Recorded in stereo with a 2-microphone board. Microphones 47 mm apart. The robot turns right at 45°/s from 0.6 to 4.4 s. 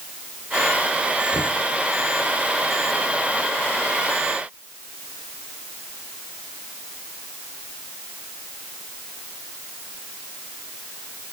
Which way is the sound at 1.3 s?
75° left (ahead or behind).